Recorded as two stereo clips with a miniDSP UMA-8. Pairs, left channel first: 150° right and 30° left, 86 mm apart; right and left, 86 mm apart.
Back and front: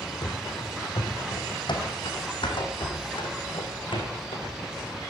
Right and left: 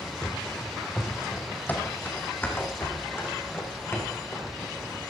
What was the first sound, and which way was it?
Running footsteps, 165° right.